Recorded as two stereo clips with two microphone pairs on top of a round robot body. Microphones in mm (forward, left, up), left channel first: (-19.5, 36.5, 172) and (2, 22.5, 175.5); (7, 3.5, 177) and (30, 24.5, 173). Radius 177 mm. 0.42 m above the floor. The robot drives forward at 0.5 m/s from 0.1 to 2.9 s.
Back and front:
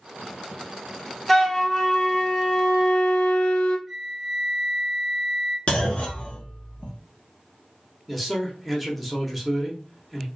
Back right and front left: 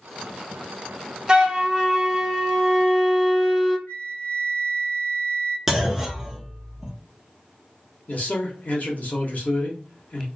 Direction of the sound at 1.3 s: 70° left.